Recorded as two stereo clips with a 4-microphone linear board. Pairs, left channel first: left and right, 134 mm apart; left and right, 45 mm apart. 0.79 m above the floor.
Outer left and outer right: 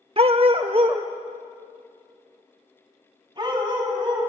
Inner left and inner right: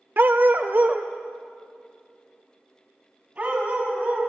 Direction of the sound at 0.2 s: 50° right (ahead or behind).